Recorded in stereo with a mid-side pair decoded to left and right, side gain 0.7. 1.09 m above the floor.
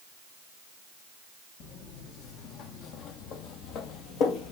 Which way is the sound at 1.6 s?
55° left.